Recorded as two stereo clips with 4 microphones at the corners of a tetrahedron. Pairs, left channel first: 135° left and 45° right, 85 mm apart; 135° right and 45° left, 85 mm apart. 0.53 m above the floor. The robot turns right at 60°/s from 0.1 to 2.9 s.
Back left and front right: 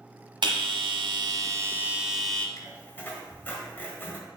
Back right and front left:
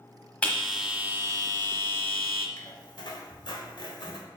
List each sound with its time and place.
0.4 s a bell: 60° right, 1.2 m; by 2.5 s 60° left, 1.2 m
2.6 s a squeak: straight behind, 1.4 m; by 4.2 s 160° right, 1.4 m